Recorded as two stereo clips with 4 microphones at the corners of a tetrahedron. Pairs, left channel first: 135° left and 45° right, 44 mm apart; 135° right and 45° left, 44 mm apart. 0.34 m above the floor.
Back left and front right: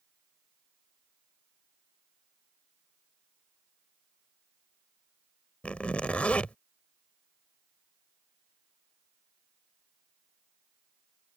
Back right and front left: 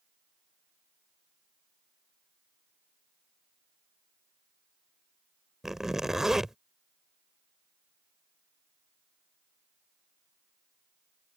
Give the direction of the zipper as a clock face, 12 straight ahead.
8 o'clock.